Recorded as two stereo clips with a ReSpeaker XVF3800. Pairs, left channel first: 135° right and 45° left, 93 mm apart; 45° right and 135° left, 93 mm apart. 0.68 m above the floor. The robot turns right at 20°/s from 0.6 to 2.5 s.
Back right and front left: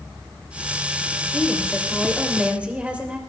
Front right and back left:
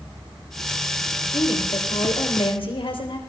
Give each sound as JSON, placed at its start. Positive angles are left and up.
{"t": 1.3, "sound": "a woman speaking", "azimuth_deg": -55, "distance_m": 3.5}